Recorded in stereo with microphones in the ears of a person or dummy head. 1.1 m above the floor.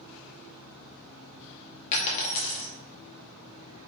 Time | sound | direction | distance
1.9 | a dropped coin | 40° left (ahead or behind) | 0.7 m